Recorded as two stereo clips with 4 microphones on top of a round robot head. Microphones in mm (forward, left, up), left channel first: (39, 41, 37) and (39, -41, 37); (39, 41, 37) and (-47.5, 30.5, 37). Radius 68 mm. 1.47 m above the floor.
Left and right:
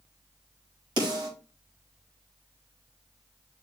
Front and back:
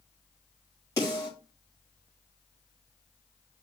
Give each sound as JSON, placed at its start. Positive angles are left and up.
{"t": 1.0, "sound": "a snare drum", "azimuth_deg": -60, "distance_m": 6.5}